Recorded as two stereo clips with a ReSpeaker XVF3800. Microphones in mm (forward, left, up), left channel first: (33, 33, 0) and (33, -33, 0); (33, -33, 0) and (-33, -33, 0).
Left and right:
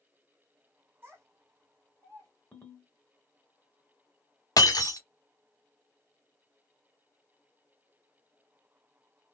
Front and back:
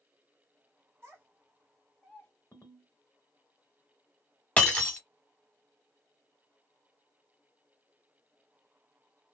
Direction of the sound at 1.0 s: 135° right.